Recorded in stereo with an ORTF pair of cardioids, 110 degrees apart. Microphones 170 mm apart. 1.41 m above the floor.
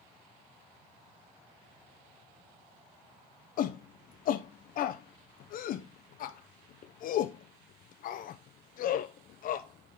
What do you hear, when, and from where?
3.6 s a shout: 55° left, 0.5 m